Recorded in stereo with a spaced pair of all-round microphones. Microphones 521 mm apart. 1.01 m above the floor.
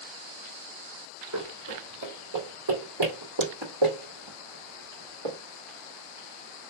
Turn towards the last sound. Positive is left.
turn(degrees=-70)  # may be behind; listen again after turning